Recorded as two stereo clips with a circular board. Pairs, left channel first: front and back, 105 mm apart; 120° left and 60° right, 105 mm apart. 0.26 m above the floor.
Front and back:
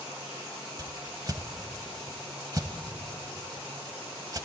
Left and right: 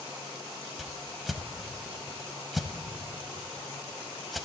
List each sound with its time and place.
0.8 s a whoosh: 150° right, 0.7 m